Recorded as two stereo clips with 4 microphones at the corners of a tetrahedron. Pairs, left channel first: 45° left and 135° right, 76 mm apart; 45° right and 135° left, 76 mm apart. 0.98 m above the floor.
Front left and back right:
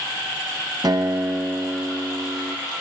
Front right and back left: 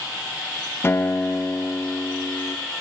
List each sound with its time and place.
0.8 s a guitar: 105° right, 0.6 m